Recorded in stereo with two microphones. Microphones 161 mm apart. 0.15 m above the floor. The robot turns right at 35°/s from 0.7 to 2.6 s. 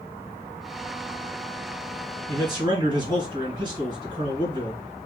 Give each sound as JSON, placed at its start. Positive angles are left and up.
{"t": 2.3, "sound": "a man speaking", "side_deg": -20, "distance_m": 2.0}